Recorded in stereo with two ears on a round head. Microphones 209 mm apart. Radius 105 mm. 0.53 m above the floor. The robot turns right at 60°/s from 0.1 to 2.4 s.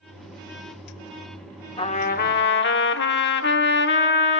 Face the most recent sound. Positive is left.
turn(degrees=65)